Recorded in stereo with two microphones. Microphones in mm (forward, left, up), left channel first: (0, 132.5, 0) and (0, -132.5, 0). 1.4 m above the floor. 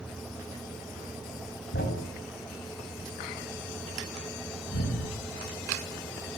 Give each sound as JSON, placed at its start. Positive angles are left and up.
{"t": 1.7, "sound": "a thud", "side_deg": 45, "distance_m": 5.0}